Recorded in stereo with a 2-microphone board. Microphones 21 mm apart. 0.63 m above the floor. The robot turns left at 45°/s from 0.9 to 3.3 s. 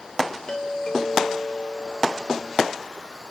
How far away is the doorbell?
About 2.5 m.